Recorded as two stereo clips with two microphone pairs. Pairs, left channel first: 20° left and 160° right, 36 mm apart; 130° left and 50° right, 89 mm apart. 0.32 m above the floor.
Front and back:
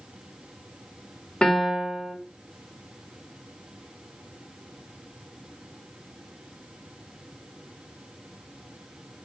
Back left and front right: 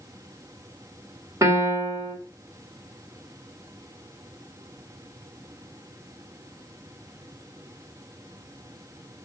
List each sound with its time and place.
1.4 s a piano: 30° right, 1.7 m